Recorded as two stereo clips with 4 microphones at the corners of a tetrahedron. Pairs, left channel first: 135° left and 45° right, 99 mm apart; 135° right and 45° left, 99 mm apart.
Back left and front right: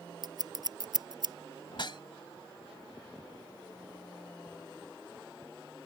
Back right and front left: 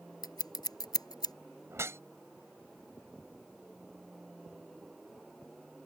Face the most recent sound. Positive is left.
turn(degrees=105)